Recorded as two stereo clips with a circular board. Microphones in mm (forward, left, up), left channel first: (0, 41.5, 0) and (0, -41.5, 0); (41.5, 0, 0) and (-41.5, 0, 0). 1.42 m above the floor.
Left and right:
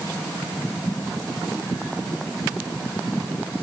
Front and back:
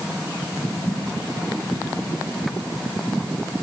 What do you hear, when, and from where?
Only background noise.